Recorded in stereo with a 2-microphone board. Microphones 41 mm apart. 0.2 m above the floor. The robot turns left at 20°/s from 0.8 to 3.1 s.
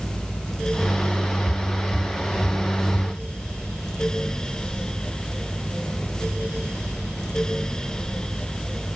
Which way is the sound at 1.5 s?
65° right (ahead or behind).